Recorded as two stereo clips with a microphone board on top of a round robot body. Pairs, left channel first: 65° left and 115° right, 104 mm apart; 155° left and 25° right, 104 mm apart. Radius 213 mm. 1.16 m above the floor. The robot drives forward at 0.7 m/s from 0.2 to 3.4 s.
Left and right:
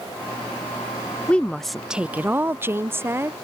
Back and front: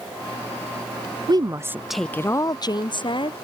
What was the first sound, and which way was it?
A woman speaking, 5° right.